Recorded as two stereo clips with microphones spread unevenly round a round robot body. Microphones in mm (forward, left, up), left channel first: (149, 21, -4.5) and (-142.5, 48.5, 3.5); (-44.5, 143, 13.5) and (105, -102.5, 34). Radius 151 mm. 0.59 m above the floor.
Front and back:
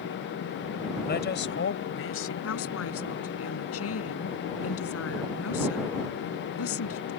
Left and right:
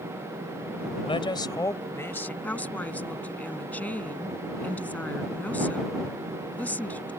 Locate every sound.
1.1 s a man speaking: 50° left; by 2.3 s 35° left
2.4 s a woman speaking: 35° left